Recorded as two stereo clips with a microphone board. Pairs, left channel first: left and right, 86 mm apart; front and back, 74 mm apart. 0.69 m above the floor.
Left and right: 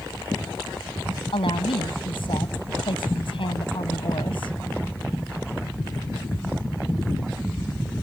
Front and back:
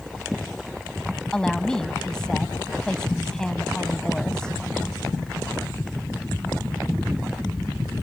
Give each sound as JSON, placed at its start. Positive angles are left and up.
{"t": 1.3, "sound": "a woman speaking", "azimuth_deg": 80}